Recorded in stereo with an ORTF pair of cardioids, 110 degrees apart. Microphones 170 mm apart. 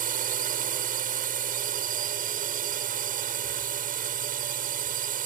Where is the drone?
55° right.